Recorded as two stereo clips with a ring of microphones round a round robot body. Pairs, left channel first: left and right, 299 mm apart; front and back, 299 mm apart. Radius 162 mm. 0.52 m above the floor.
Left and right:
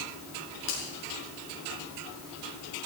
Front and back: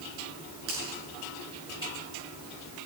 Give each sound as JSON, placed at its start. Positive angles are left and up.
{"t": 0.7, "sound": "a finger snap", "azimuth_deg": 125, "distance_m": 7.0}